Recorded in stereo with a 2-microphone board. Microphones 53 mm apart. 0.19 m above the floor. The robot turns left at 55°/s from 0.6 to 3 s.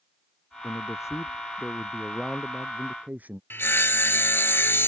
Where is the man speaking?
95° left; by 3.4 s 35° right.